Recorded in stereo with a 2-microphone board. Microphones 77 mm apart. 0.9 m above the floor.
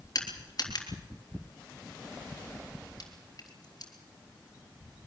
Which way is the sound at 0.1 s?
55° left (ahead or behind).